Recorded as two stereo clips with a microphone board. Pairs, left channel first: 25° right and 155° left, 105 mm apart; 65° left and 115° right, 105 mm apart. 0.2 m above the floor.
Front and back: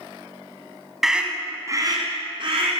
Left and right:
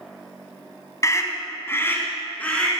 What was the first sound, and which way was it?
A scream, 70° left.